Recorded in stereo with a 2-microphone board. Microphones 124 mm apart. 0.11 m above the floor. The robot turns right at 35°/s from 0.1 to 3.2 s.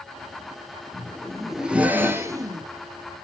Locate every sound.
0.9 s a zipper: 165° left, 0.7 m; by 2.7 s 135° right, 0.7 m